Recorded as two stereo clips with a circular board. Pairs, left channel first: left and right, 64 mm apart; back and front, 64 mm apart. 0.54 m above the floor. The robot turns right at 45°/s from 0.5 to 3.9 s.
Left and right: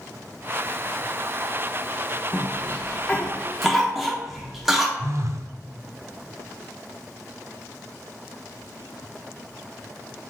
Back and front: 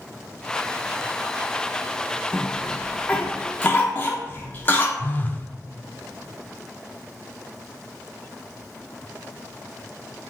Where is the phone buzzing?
125° right, 0.6 m.